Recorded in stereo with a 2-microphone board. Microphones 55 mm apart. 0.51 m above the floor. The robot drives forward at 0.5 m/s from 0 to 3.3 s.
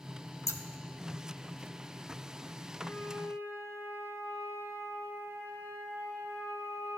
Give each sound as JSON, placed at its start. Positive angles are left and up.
{"t": 0.5, "sound": "scissors", "side_deg": 60, "distance_m": 0.5}
{"t": 2.8, "sound": "a flute", "side_deg": 50, "distance_m": 3.5}